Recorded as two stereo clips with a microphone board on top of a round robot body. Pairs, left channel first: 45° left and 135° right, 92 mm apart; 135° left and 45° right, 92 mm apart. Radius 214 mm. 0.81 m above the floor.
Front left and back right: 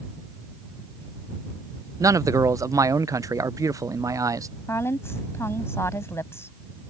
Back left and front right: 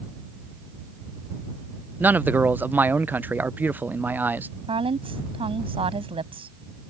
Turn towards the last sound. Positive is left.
turn(degrees=-20)